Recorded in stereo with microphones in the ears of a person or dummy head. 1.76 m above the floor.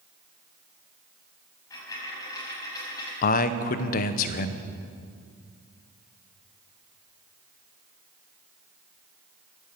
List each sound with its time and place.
1.7 s a dropped coin: 25° left (ahead or behind), 6 m
3.2 s a man speaking: 50° left (ahead or behind), 0.8 m